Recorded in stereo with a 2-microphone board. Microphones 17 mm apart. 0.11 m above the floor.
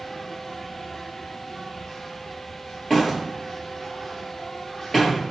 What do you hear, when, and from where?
0.0 s an insect: 35° left (ahead or behind), 1.8 m
2.9 s a door slam: 20° left (ahead or behind), 1.6 m